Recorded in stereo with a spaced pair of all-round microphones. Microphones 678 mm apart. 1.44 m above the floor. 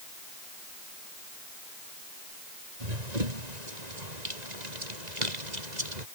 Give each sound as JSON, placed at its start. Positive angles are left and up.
{"t": 2.8, "sound": "running footsteps", "side_deg": -75}